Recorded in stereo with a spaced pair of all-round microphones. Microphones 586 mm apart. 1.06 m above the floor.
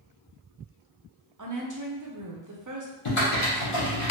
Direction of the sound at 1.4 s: 35° right (ahead or behind).